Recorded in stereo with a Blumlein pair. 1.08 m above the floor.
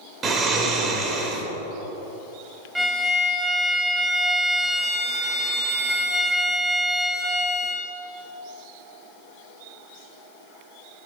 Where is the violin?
Straight ahead, 0.8 m.